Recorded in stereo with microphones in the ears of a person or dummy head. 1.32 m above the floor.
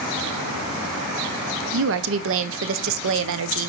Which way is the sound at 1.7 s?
75° right (ahead or behind).